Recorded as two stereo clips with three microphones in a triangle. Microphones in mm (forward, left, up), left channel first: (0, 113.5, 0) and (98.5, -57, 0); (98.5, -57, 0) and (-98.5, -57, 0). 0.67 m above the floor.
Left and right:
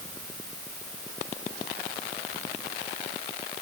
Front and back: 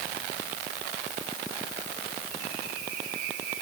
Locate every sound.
Only background noise.